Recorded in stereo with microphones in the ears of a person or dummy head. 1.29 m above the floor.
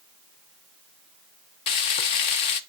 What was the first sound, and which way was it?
Frying, 40° left (ahead or behind).